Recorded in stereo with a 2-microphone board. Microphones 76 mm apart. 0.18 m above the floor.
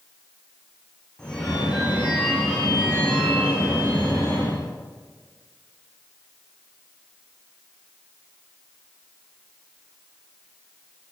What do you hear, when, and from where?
1.2 s a phone ringing: 10° left (ahead or behind), 9 m